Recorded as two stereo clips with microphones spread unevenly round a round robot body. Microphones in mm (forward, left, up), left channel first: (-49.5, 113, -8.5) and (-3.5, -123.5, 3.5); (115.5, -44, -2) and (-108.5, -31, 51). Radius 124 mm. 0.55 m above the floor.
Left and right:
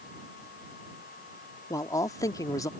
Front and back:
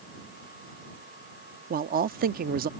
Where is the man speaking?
155° left.